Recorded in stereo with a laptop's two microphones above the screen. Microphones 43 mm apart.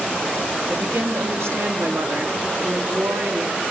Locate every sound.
0.7 s a woman speaking: 75° right (ahead or behind), 2.5 m